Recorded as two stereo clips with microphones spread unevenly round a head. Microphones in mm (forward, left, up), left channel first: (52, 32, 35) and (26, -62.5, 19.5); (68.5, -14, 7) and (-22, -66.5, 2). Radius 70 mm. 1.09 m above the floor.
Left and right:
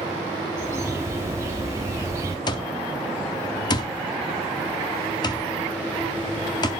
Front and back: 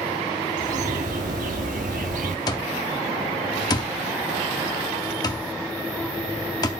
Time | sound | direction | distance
0.6 | a bird | straight behind | 1.2 m
2.5 | an alarm clock | 75° left | 0.7 m